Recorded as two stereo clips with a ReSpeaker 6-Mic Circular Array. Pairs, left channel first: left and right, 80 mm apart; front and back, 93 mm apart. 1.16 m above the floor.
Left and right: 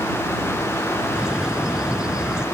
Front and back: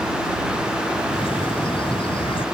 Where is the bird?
10° right.